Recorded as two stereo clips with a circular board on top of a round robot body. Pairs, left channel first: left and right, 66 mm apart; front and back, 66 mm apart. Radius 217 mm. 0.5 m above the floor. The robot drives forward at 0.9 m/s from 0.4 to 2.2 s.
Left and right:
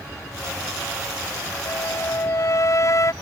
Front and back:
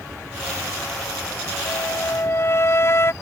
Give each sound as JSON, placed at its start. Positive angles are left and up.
{"t": 1.6, "sound": "a flute", "azimuth_deg": 45}